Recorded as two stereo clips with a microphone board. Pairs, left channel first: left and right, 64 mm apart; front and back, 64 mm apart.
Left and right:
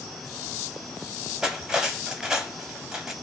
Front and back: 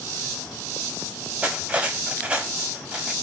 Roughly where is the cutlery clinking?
Behind right.